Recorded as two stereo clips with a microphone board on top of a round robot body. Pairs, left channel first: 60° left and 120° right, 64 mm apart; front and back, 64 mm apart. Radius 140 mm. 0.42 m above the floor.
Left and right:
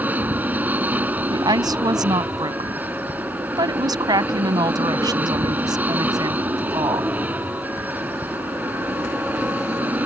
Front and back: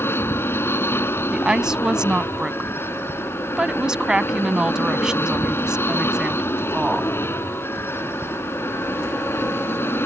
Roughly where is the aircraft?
Ahead right.